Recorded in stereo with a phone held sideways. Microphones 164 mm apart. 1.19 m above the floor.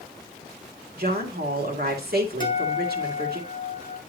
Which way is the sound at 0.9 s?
75° right (ahead or behind).